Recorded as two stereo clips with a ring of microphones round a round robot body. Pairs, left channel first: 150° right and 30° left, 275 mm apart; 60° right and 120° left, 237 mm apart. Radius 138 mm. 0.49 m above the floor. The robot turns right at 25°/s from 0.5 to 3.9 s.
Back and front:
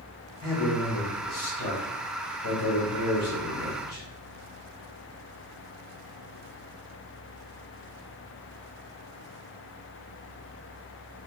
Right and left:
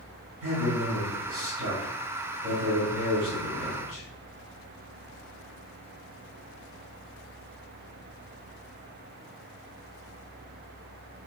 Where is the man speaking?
140° left, 1.9 m; by 4.0 s 135° right, 1.9 m.